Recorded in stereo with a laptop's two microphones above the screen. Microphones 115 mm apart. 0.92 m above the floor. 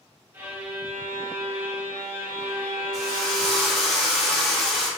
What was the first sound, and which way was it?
A violin, 15° right (ahead or behind).